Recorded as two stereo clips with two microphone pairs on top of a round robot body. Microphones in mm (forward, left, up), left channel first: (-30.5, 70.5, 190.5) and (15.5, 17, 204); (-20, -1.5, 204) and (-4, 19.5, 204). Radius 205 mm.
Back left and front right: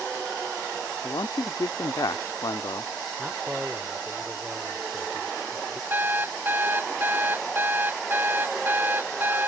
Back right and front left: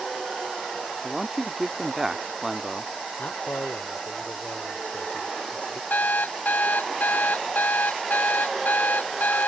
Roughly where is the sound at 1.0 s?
Behind left.